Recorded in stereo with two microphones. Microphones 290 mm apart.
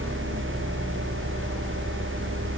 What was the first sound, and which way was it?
Only background noise.